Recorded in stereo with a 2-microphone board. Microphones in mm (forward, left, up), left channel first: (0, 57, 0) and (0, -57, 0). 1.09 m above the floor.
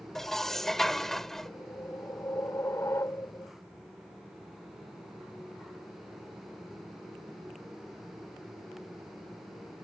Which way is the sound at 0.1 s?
5° left (ahead or behind).